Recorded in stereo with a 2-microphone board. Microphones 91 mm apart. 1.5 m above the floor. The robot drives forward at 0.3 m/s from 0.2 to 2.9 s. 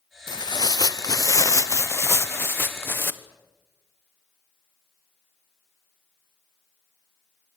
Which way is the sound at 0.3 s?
55° left (ahead or behind).